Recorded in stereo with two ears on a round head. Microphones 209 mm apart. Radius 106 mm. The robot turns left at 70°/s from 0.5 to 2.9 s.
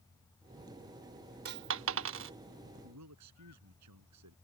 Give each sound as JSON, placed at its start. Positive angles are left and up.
{"t": 1.4, "sound": "a dropped coin", "side_deg": -45}
{"t": 2.8, "sound": "a man speaking", "side_deg": -75}